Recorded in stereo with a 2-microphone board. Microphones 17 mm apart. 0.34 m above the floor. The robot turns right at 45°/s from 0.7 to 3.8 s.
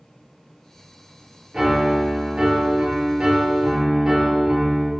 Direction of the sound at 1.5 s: 135° right.